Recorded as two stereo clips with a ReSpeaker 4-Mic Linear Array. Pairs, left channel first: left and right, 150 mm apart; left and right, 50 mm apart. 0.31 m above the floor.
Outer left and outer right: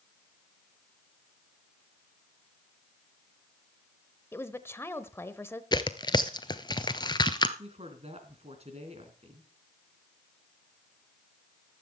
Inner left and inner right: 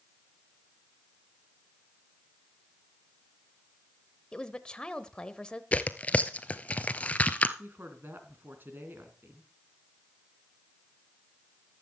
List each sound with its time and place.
4.3 s a woman speaking: 15° left (ahead or behind), 1.0 m
5.7 s tearing paper: 30° left (ahead or behind), 0.8 m
7.6 s a woman speaking: 45° right (ahead or behind), 3 m